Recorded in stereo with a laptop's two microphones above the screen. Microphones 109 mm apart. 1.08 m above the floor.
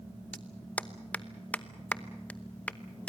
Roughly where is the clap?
Centre.